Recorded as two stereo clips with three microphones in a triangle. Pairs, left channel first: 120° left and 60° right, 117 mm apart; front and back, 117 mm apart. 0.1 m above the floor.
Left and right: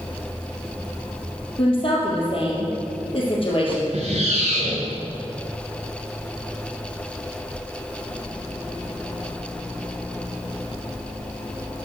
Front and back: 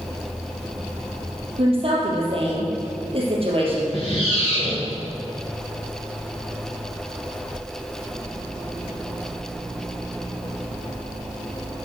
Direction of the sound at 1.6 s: 150° left.